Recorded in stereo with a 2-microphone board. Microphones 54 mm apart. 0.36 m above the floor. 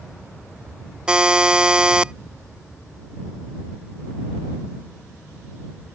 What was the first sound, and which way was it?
A buzzer, 15° right (ahead or behind).